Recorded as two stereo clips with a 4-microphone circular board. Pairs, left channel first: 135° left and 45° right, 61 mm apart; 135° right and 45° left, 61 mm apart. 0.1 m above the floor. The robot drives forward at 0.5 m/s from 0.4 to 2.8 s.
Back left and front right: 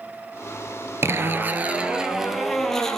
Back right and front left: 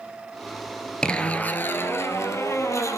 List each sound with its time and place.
1.0 s a zipper: 65° right, 0.7 m; by 3.0 s 145° right, 0.9 m